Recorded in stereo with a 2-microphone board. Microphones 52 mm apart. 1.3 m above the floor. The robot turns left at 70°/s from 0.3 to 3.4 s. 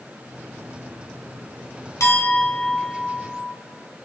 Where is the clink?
75° left, 2.5 m; by 3.5 s 25° right, 2.5 m.